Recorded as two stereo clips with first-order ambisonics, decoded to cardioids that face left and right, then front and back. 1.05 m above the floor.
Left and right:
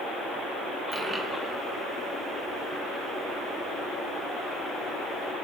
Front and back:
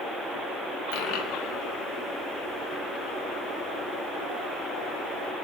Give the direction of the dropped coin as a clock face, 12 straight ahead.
12 o'clock.